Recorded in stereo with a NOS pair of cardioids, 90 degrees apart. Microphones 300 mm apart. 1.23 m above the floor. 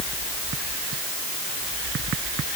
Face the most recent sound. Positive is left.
No sound to turn to.